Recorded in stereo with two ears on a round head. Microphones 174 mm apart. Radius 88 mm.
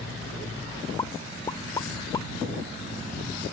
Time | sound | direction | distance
1.0 | a pop | 20° left (ahead or behind) | ?